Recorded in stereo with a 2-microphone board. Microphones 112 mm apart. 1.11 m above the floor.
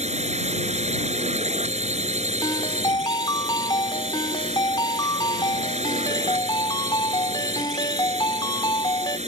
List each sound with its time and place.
0.0 s a drone: 80° right
2.4 s a ringtone: 40° left (ahead or behind)